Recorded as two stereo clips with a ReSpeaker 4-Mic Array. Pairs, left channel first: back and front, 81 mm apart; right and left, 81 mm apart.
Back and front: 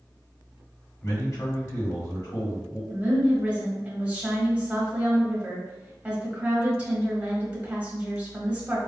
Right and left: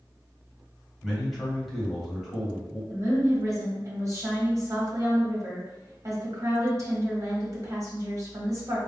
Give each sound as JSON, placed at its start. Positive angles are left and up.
{"t": 1.0, "sound": "a man speaking", "azimuth_deg": 180, "distance_m": 1.5}
{"t": 2.9, "sound": "a woman speaking", "azimuth_deg": 70, "distance_m": 1.3}